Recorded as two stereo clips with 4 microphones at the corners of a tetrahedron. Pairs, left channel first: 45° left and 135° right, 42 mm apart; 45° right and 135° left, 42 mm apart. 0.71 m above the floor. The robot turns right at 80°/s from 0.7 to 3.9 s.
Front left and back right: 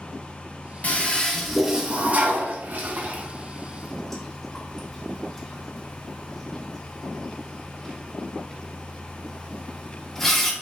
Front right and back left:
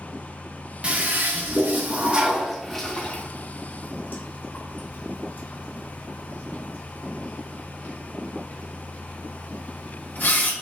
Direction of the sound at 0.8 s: 85° left.